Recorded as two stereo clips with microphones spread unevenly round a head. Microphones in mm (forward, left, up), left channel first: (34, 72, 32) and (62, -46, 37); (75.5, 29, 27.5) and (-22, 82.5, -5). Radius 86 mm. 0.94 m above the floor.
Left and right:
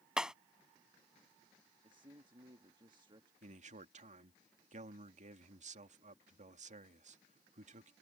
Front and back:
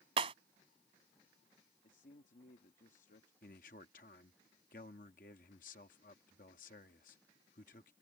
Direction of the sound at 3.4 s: 60° right.